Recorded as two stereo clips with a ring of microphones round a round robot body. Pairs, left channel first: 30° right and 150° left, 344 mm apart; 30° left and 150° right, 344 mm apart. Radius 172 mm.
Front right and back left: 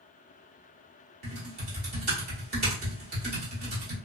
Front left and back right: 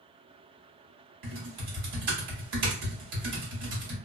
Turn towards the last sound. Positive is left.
turn(degrees=-150)